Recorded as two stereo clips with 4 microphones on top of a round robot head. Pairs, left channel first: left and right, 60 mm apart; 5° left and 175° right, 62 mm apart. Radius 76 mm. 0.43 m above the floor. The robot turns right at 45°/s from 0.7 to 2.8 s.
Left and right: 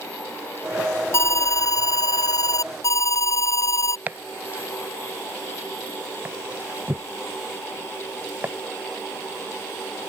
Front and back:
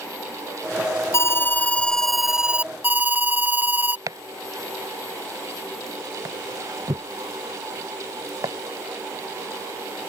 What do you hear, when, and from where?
1.1 s an alarm: 50° left; by 4.0 s 125° left
4.1 s chopping: 150° right